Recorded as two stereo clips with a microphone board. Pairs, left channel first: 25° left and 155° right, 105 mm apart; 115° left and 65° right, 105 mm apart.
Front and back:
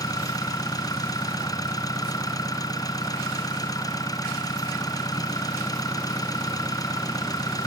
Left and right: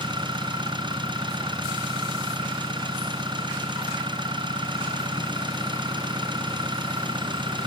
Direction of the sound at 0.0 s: 30° right.